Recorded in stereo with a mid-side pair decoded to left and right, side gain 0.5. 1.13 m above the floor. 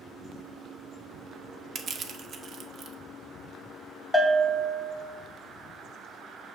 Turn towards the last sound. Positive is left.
turn(degrees=10)